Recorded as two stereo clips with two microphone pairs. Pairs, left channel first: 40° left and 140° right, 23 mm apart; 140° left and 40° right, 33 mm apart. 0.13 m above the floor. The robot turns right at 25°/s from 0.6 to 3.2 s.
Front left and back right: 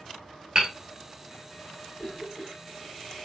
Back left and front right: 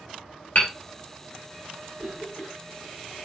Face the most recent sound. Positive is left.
turn(degrees=60)